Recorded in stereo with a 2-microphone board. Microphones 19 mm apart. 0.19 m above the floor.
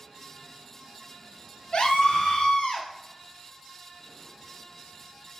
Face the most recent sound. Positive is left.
turn(degrees=55)  # may be behind; listen again after turning